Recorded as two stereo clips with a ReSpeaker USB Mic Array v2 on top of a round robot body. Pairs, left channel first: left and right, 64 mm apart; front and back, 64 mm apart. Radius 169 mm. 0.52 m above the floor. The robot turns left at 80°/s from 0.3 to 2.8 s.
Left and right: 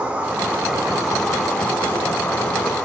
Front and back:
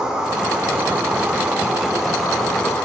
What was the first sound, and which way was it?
An insect, 120° right.